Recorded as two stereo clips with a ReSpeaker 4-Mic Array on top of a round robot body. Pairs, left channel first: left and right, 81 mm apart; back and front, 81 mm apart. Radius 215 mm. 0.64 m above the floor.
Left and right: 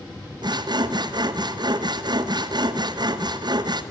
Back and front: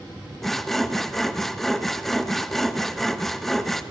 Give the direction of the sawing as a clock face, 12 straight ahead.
3 o'clock.